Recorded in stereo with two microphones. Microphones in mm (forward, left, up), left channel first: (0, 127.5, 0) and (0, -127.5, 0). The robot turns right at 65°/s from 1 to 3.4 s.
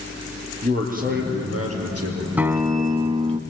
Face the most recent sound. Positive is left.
turn(degrees=-20)  # may be behind; listen again after turning